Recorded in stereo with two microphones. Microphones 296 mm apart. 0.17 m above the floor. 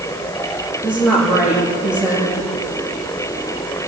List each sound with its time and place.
0.8 s a woman speaking: 5° right (ahead or behind), 9.5 m